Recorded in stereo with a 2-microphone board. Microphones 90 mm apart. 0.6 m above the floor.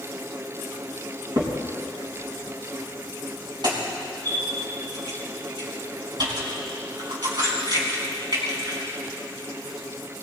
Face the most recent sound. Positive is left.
turn(degrees=-55)  # may be behind; listen again after turning